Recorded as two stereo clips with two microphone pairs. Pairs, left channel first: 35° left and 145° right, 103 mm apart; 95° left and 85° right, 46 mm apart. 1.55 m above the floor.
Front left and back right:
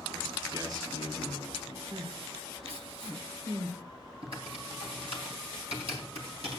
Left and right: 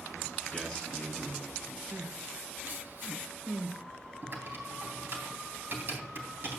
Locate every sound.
0.5 s a man speaking: 170° left, 5 m
1.9 s crying: 125° right, 1.8 m
4.2 s typing on a keyboard: 125° right, 3.5 m